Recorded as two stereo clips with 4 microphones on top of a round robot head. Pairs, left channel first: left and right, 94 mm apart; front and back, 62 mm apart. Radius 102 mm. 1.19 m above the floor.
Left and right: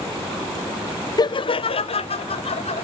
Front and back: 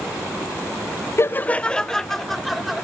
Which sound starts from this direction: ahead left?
Laughter, at 1.2 s.